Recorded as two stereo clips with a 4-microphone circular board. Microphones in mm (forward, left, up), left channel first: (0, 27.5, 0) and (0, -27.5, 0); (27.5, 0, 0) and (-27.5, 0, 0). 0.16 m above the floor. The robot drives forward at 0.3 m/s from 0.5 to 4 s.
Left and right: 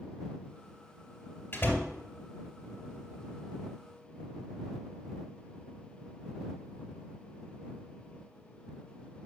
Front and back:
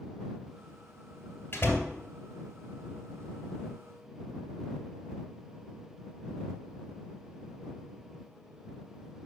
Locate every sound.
1.5 s a door slam: 45° left, 2 m; by 1.9 s 50° left, 2 m